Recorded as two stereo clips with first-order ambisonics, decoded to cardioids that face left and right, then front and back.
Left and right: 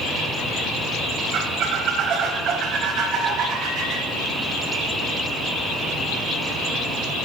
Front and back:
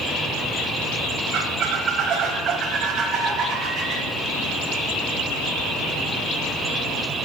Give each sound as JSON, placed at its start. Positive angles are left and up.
{"t": 1.3, "sound": "a squeak", "azimuth_deg": -135, "distance_m": 1.0}